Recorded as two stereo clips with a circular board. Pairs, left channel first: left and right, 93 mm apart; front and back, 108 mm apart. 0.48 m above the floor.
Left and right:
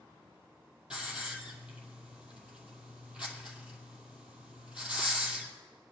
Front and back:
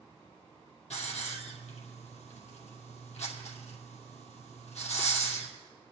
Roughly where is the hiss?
Ahead.